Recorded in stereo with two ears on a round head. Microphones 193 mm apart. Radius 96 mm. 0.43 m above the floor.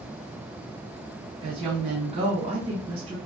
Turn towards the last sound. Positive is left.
turn(degrees=-30)  # may be behind; listen again after turning